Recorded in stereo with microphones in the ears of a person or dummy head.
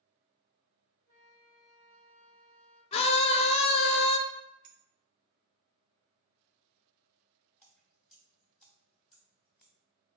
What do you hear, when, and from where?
1.1 s a flute: 10° left (ahead or behind), 2.5 m
2.9 s a scream: 30° left (ahead or behind), 0.7 m
4.6 s a clink: 35° right (ahead or behind), 0.6 m
7.6 s dripping: 10° left (ahead or behind), 0.9 m